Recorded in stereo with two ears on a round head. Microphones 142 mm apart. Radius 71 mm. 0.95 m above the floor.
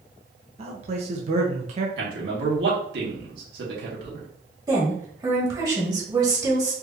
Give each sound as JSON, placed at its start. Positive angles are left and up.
{"t": 0.6, "sound": "a man speaking", "side_deg": -40, "distance_m": 0.9}
{"t": 2.0, "sound": "a man speaking", "side_deg": -75, "distance_m": 2.0}
{"t": 4.7, "sound": "a woman speaking", "side_deg": -25, "distance_m": 1.8}